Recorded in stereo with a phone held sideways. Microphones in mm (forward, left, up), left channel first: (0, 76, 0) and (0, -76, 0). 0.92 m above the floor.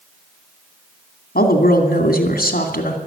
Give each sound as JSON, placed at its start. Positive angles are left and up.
{"t": 1.4, "sound": "a woman speaking", "side_deg": 75, "distance_m": 2.5}